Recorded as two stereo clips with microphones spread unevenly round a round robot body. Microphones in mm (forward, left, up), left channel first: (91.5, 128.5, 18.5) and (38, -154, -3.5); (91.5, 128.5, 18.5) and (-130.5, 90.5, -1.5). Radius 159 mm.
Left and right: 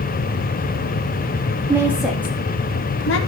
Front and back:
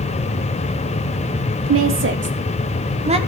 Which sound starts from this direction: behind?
A woman speaking, at 1.7 s.